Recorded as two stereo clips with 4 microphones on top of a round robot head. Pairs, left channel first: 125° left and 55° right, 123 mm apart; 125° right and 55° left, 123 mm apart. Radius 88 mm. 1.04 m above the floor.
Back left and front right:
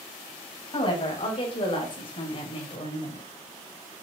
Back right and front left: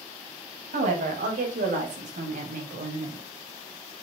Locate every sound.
0.7 s a woman speaking: 75° left, 6 m; by 3.3 s 80° left, 4 m